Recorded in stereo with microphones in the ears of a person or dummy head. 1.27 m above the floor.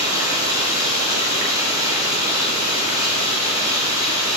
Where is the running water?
15° right (ahead or behind), 2 m.